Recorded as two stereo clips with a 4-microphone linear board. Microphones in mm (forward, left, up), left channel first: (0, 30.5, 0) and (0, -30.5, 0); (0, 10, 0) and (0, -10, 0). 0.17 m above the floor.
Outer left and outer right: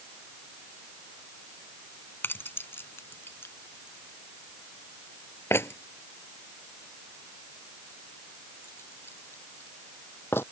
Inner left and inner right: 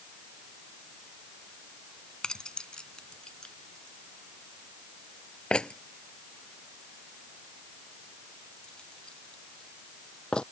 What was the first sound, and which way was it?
Keys jangling, 40° left (ahead or behind).